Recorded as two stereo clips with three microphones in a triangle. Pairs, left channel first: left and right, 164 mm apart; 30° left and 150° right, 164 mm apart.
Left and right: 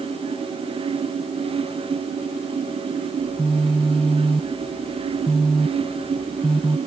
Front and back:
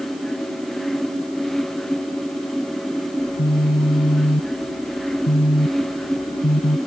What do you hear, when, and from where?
3.2 s a phone buzzing: 5° left